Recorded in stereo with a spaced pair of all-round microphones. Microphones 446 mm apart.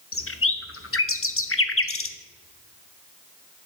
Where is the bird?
30° left (ahead or behind), 0.6 m.